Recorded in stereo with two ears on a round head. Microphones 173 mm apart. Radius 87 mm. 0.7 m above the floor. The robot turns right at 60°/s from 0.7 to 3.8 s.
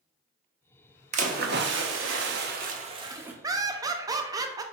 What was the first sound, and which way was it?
A splash, 140° right.